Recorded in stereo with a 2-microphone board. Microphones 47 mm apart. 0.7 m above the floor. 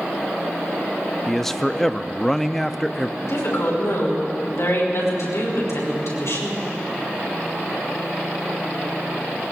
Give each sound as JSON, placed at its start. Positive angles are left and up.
{"t": 1.3, "sound": "a man speaking", "side_deg": 5, "distance_m": 0.6}
{"t": 3.2, "sound": "a woman speaking", "side_deg": 80, "distance_m": 5.5}